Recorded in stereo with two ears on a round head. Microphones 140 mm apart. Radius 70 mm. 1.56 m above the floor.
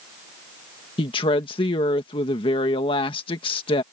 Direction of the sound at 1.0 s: 35° left (ahead or behind).